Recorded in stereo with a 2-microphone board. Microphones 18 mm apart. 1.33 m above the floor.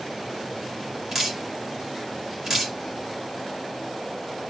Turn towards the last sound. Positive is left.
turn(degrees=-15)  # may be behind; listen again after turning